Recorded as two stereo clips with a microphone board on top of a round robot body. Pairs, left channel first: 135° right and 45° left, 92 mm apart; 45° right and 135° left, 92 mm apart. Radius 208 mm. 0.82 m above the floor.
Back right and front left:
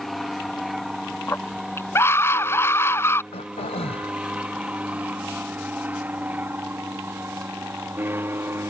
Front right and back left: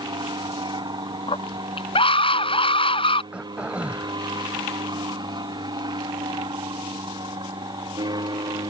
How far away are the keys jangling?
I don't hear keys jangling.